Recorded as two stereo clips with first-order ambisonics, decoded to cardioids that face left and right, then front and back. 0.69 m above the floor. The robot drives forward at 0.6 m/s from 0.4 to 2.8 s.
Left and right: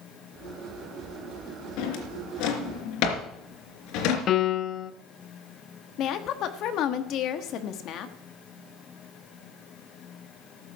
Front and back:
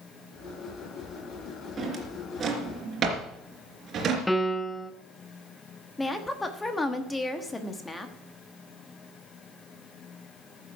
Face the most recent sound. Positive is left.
turn(degrees=75)